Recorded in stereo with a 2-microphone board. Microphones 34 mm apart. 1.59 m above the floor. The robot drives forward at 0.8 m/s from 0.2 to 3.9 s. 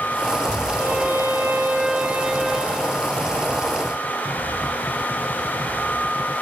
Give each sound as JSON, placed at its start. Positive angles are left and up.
{"t": 0.8, "sound": "a violin", "side_deg": -55, "distance_m": 0.6}